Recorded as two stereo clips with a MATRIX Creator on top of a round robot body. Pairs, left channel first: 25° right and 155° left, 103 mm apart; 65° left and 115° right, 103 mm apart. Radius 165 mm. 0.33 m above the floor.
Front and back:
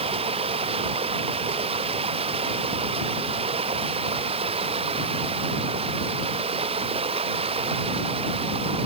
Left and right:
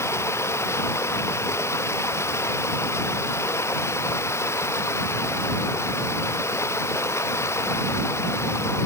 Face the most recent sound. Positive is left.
turn(degrees=130)